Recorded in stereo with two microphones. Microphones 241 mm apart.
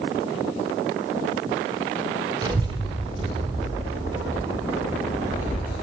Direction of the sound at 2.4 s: 15° right (ahead or behind).